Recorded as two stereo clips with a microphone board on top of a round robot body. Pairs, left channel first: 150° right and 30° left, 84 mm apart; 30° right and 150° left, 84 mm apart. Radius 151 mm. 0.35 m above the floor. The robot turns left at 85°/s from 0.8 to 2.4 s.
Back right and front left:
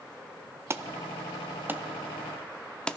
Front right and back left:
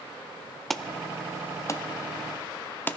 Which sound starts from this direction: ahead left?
An alarm, at 0.7 s.